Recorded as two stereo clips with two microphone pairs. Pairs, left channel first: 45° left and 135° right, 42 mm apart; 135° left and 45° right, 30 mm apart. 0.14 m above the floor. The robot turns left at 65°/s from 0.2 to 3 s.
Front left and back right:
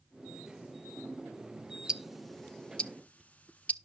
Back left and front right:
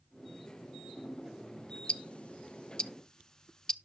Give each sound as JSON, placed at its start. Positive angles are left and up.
{"t": 1.9, "sound": "ticking", "azimuth_deg": 160, "distance_m": 0.6}